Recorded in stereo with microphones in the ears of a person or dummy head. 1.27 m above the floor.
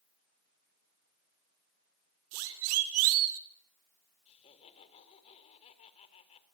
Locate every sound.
2.3 s a siren: 80° right, 4 m; by 3.4 s 75° right (ahead or behind), 2 m
4.3 s laughter: 35° left (ahead or behind), 4.5 m